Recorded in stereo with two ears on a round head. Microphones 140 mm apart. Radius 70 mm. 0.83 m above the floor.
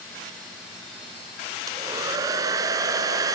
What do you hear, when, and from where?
1.7 s a hair dryer: 25° right (ahead or behind), 2.5 m